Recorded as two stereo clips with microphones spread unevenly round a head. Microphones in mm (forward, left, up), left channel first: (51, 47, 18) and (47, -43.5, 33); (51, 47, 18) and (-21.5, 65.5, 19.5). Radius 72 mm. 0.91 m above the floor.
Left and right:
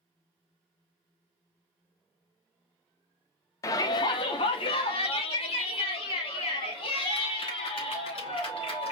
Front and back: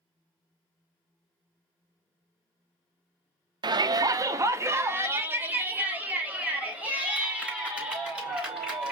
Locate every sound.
3.6 s a shout: 145° left, 0.6 m; by 8.9 s 90° left, 3 m